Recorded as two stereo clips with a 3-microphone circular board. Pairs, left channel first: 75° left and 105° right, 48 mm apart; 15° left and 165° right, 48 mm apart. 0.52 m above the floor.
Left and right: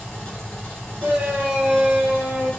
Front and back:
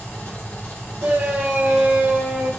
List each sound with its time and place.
0.0 s an engine running: 15° left, 1.5 m
1.0 s a shout: 150° right, 1.8 m